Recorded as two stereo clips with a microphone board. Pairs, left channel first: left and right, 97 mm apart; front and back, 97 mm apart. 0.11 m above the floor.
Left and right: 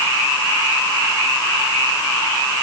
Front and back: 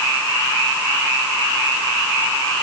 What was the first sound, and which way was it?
Only background noise.